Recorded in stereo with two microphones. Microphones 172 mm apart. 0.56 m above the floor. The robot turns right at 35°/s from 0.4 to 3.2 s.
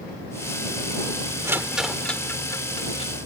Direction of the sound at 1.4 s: 15° right (ahead or behind).